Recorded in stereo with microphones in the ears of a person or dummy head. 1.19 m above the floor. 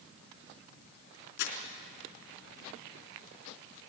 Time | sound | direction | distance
1.4 | crumpling | 60° left (ahead or behind) | 3.5 m